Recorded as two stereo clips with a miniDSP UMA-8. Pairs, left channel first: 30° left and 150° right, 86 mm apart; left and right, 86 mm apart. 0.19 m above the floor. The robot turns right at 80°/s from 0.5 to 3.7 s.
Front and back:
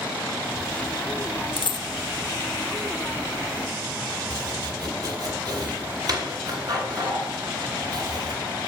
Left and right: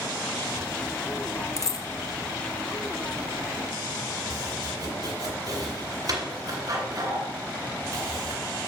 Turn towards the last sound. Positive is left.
turn(degrees=-125)